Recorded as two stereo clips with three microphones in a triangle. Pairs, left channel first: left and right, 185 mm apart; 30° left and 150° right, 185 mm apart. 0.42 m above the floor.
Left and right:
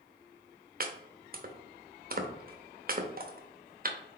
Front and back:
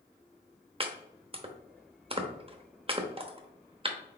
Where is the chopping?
95° right, 0.7 m.